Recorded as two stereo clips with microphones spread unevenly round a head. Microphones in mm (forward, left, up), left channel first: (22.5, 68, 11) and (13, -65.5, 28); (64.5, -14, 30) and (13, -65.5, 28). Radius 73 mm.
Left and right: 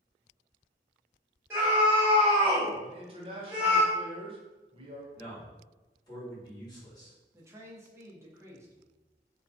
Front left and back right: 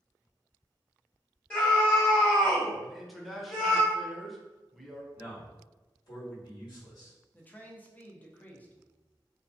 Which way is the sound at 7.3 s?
20° right.